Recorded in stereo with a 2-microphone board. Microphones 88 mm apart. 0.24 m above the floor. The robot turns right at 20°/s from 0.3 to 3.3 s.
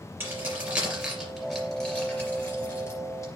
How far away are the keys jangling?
About 3 m.